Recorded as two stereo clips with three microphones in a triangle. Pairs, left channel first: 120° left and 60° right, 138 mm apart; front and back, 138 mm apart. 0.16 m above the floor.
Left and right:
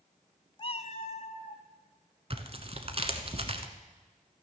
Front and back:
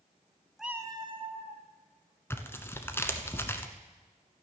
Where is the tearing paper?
65° right, 1.1 m.